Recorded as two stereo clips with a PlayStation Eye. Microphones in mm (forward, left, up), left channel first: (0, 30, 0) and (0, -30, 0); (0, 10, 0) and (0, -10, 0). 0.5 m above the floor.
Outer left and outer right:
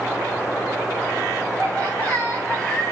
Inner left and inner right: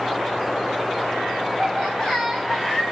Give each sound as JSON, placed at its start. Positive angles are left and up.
{"t": 1.6, "sound": "laughter", "side_deg": 15, "distance_m": 4.5}